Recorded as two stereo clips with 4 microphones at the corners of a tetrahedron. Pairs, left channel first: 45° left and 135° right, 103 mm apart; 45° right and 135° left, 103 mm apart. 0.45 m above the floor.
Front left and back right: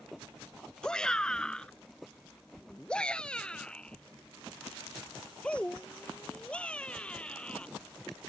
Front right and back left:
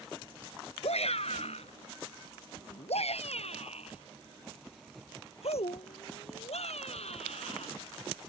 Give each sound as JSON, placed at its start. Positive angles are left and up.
{"t": 0.8, "sound": "a shout", "azimuth_deg": -40}